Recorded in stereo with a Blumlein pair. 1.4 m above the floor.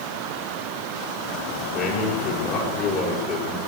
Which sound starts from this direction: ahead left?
A man speaking, at 1.7 s.